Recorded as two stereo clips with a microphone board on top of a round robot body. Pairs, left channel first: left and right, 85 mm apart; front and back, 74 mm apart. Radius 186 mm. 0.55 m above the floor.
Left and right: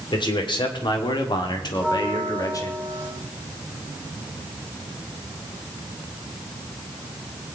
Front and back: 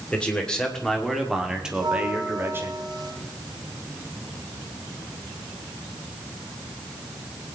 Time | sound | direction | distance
0.1 | a man speaking | 75° left | 3 m
1.7 | a bell | 160° left | 7 m